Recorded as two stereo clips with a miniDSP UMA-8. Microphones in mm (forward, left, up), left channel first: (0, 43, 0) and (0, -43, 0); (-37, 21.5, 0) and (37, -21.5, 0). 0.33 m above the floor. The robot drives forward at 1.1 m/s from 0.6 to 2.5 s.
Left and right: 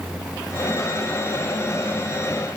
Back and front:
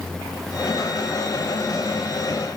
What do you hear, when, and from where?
Only background noise.